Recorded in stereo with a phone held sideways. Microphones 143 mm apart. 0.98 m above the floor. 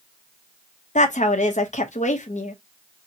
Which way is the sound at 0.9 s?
55° left (ahead or behind).